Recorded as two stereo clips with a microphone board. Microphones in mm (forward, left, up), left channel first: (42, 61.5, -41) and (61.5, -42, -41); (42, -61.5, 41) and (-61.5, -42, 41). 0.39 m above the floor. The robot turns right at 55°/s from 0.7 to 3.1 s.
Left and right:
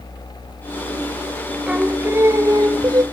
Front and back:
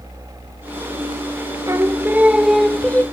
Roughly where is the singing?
Behind right.